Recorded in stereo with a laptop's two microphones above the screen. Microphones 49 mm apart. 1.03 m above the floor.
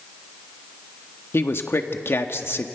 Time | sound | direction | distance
1.3 | a man speaking | 55° left (ahead or behind) | 1.4 m